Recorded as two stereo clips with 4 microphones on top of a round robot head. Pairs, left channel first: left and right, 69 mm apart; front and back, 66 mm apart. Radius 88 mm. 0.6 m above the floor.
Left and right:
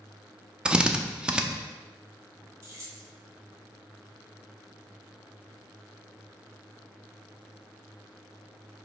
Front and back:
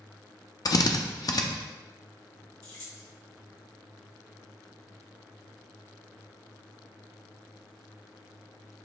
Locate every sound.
0.7 s a drill: 10° right, 0.6 m
2.6 s keys jangling: 40° right, 1.6 m